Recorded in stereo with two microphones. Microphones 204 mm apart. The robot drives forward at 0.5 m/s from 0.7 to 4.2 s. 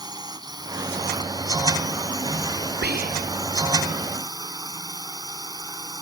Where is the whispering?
55° right (ahead or behind); by 3.4 s 40° right (ahead or behind).